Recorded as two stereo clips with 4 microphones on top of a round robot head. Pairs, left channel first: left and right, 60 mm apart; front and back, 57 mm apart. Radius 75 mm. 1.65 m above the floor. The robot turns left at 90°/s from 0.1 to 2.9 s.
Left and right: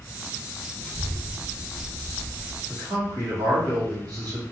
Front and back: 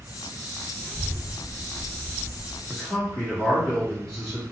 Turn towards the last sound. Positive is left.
turn(degrees=-80)